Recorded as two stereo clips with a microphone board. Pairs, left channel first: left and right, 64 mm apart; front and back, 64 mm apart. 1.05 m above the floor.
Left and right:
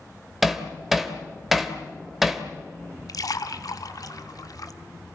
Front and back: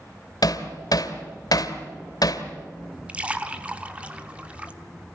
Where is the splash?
110° left, 1.3 m.